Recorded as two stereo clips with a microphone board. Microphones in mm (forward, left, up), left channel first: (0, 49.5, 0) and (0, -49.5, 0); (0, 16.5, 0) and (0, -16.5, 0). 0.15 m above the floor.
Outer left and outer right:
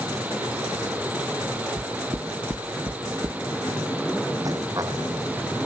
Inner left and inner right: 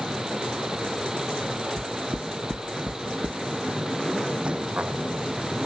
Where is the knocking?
55° right (ahead or behind).